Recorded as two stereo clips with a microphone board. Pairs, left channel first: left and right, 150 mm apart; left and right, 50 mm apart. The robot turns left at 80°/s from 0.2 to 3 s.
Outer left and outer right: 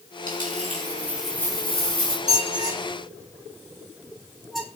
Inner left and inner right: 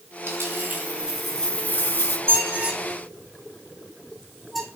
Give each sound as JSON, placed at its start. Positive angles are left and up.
{"t": 0.3, "sound": "a dropped coin", "azimuth_deg": -100, "distance_m": 5.0}
{"t": 2.3, "sound": "a squeak", "side_deg": -55, "distance_m": 3.5}